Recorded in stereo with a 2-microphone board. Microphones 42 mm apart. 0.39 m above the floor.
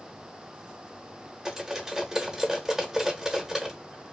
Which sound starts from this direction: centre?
Cutlery clinking, at 1.4 s.